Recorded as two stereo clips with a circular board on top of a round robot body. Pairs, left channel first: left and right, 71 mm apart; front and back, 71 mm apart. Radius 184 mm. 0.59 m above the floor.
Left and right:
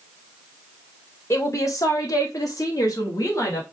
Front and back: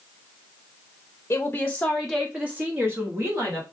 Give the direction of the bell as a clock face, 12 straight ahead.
I don't hear a bell.